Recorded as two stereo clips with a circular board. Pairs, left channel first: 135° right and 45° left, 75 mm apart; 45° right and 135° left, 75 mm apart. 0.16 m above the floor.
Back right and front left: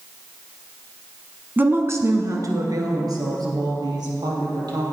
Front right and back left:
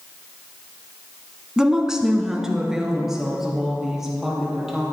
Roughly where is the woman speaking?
Ahead left.